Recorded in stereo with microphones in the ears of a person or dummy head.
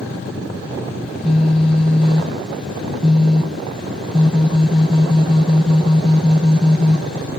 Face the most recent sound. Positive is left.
turn(degrees=5)  # may be behind; listen again after turning